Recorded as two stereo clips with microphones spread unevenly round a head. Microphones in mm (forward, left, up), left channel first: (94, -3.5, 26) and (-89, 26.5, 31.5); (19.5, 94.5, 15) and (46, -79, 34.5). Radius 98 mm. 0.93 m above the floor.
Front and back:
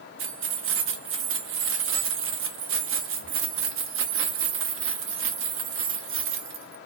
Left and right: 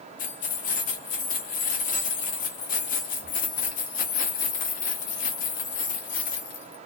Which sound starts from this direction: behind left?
Keys jangling, at 0.2 s.